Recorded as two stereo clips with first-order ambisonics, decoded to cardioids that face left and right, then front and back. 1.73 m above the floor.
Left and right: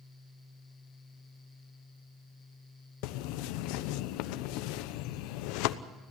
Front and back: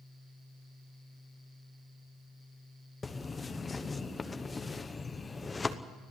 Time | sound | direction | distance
3.0 | a bird | 75° left | 0.9 m